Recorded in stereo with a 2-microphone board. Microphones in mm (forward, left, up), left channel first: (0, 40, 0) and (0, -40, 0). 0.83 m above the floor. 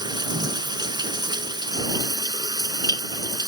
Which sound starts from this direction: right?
Running water, at 0.0 s.